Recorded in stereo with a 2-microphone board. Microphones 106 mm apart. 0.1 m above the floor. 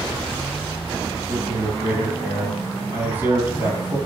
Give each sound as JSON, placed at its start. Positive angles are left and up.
{"t": 1.3, "sound": "a man speaking", "side_deg": -15, "distance_m": 2.5}